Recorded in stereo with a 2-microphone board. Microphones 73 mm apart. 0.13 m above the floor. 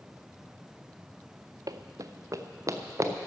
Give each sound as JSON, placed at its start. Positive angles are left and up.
{"t": 1.7, "sound": "running footsteps", "side_deg": -55, "distance_m": 0.6}